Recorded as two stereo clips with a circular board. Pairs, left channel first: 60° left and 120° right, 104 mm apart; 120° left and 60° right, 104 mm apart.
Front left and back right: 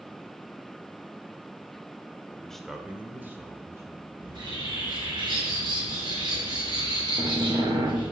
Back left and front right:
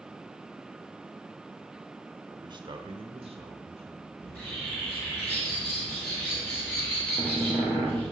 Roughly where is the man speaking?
Ahead.